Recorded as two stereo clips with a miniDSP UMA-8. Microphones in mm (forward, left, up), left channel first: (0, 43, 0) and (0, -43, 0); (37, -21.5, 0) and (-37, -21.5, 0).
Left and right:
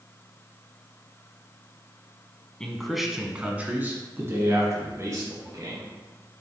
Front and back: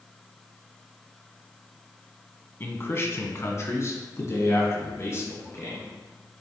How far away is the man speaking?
About 1.3 m.